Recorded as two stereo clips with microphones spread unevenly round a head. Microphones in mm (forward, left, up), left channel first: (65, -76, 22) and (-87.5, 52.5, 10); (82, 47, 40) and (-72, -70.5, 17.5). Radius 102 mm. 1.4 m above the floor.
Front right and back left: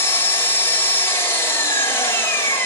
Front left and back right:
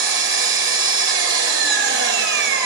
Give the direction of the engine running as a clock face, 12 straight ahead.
4 o'clock.